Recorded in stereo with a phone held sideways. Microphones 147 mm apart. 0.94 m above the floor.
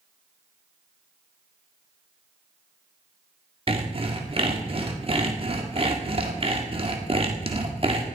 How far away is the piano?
No piano in this recording.